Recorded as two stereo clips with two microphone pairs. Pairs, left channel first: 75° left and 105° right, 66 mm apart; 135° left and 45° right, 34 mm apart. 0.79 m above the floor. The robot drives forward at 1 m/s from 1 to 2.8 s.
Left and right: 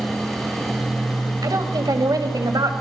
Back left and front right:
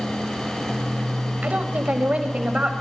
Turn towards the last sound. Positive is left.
turn(degrees=-100)